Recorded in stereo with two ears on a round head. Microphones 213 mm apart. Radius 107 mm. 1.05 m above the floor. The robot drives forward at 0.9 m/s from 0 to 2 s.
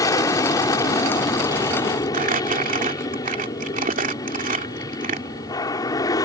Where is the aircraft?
15° left (ahead or behind).